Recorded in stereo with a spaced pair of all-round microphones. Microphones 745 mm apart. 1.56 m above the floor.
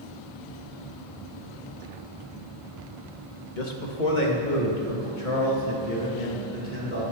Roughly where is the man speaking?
Left.